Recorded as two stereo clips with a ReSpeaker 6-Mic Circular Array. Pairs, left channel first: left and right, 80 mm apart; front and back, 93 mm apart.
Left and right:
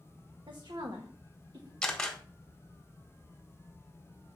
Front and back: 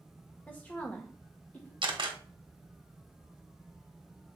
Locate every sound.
0.5 s a woman speaking: 70° right, 1.1 m
1.8 s a camera shutter: 170° left, 1.2 m